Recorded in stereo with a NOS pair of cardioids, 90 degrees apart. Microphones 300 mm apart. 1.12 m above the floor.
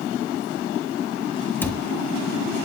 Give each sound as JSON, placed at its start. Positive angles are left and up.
{"t": 1.6, "sound": "a cupboard door", "azimuth_deg": 5, "distance_m": 1.4}